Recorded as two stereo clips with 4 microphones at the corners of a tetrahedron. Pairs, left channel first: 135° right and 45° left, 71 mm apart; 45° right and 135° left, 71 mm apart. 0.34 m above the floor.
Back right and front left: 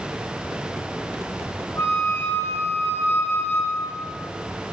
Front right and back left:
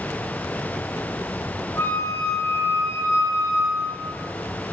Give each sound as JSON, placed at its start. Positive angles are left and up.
{"t": 1.8, "sound": "a flute", "azimuth_deg": -90, "distance_m": 4.0}